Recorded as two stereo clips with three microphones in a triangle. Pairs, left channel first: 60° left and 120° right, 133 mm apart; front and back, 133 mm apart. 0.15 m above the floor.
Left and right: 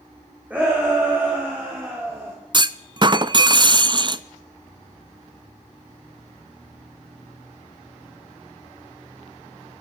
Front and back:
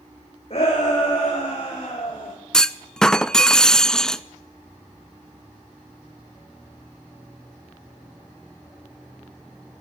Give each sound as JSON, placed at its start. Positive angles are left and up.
{"t": 0.5, "sound": "a shout", "azimuth_deg": -40, "distance_m": 8.5}
{"t": 2.5, "sound": "a clunk", "azimuth_deg": -85, "distance_m": 0.6}